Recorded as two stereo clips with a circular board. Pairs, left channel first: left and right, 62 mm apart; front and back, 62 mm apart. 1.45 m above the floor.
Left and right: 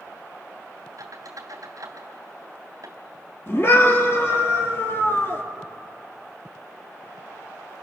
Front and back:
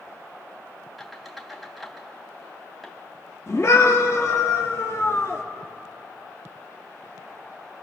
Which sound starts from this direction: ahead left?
A scream, at 3.5 s.